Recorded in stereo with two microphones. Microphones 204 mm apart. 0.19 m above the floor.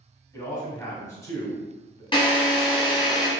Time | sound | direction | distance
0.3 | a man speaking | 15° left (ahead or behind) | 1.7 m
2.1 | a drill | 25° left (ahead or behind) | 1.5 m